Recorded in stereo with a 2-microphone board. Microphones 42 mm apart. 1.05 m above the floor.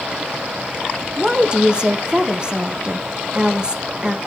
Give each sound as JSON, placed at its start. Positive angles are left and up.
{"t": 1.2, "sound": "a woman speaking", "side_deg": -20, "distance_m": 0.5}